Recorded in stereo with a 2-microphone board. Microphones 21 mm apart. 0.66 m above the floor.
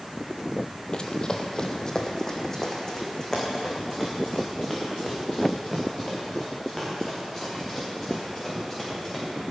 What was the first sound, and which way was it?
Running footsteps, 40° left (ahead or behind).